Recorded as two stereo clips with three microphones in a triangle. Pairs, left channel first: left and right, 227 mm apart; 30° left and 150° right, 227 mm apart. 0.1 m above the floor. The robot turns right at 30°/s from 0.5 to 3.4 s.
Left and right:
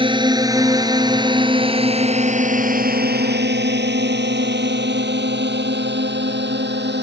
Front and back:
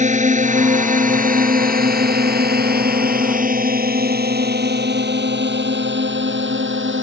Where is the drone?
135° right; by 7.0 s 125° right.